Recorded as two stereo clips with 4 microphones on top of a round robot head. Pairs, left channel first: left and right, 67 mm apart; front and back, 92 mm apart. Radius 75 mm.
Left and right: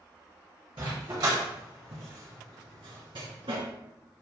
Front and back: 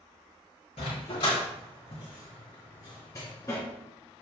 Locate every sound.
0.8 s a dog barking: 45° right, 4 m; by 3.6 s 70° right, 3 m